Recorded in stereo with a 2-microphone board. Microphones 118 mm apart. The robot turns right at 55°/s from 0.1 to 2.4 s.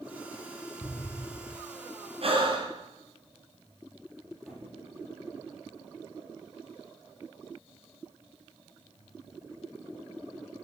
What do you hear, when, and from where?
0.8 s an explosion: 5° left (ahead or behind), 0.6 m; by 1.6 s 20° left (ahead or behind), 0.6 m
2.2 s breathing: 55° right (ahead or behind), 2.5 m; by 2.7 s 45° right (ahead or behind), 2.5 m
4.5 s a squeak: 5° right (ahead or behind), 9.5 m